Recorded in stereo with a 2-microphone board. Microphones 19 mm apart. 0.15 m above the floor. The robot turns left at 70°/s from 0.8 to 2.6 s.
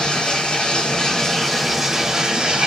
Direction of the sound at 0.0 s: 60° left.